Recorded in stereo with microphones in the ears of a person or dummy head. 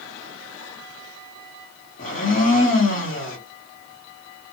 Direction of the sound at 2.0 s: 50° left (ahead or behind).